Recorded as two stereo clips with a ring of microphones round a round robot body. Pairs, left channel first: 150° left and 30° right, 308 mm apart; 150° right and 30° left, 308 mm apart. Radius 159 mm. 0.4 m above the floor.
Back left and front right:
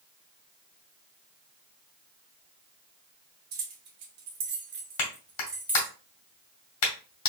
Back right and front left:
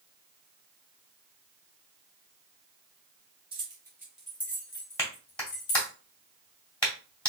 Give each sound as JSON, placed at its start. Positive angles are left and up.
{"t": 3.5, "sound": "keys jangling", "azimuth_deg": -40, "distance_m": 1.6}
{"t": 5.0, "sound": "a clap", "azimuth_deg": 125, "distance_m": 1.9}